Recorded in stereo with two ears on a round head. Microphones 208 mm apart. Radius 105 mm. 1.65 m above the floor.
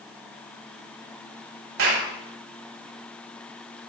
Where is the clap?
70° right (ahead or behind), 8.5 m.